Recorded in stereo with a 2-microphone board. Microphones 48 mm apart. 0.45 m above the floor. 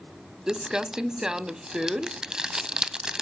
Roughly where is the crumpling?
Centre.